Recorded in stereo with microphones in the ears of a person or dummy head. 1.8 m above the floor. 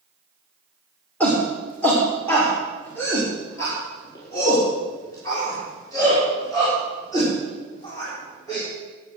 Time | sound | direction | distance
1.2 | a shout | 5° left (ahead or behind) | 2.5 m